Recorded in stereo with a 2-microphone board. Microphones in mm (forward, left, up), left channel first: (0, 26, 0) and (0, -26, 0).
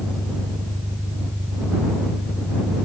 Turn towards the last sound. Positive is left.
turn(degrees=-40)  # may be behind; listen again after turning